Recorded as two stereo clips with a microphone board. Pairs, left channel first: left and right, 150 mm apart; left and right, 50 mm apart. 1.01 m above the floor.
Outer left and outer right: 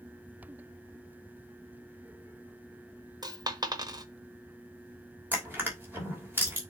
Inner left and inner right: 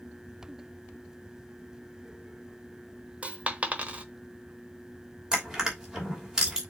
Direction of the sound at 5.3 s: 15° right (ahead or behind).